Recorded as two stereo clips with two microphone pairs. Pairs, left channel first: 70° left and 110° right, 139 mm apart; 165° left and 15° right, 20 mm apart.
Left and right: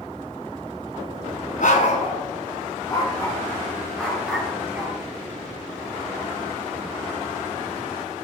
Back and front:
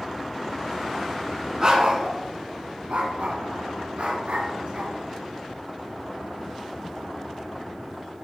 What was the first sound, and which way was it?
A dog barking, 45° left.